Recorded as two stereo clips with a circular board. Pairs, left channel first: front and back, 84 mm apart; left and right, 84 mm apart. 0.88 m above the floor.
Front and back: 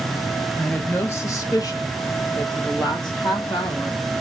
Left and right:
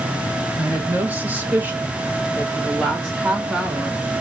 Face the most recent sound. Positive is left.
turn(degrees=-20)